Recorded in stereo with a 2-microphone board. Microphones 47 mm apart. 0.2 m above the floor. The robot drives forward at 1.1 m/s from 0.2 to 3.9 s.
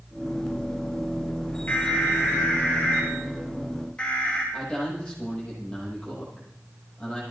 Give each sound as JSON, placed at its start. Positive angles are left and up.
{"t": 1.7, "sound": "an alarm", "side_deg": 40, "distance_m": 4.0}
{"t": 4.5, "sound": "a man speaking", "side_deg": 15, "distance_m": 8.5}